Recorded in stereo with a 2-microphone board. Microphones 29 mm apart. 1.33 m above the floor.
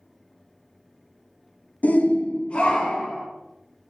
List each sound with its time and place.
1.8 s a shout: 60° left (ahead or behind), 0.6 m; by 3.3 s 35° left (ahead or behind), 1.8 m